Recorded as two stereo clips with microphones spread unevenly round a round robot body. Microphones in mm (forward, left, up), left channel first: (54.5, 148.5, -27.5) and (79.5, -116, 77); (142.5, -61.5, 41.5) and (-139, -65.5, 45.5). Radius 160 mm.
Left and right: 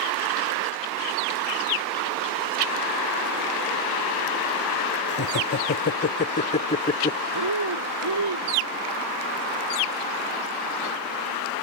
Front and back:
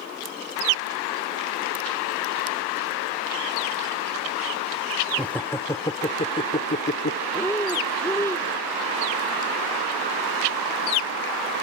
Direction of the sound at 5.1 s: 85° left.